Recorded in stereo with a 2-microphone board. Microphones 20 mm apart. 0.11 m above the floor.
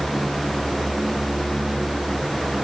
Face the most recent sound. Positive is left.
No sound to turn to.